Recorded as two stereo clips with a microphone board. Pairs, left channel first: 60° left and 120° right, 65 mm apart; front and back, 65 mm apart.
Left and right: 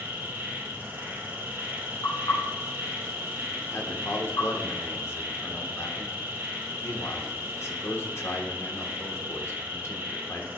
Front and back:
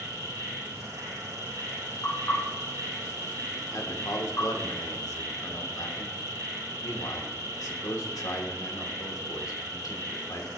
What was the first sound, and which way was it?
An insect, 170° right.